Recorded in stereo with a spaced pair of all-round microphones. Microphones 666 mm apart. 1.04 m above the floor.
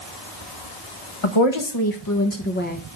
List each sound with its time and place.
1.2 s a woman speaking: 50° left (ahead or behind), 1.1 m; by 2.8 s 10° left (ahead or behind), 1.2 m